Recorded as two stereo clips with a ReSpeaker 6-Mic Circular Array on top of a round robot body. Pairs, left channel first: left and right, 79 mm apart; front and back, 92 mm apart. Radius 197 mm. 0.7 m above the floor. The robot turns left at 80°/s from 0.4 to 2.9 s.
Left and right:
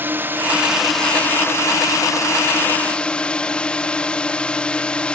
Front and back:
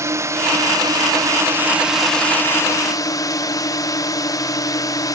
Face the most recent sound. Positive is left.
turn(degrees=20)